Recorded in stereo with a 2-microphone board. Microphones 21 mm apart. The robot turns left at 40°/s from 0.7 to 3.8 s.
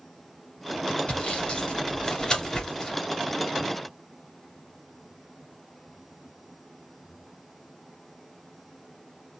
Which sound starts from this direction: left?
Sawing, at 1.1 s.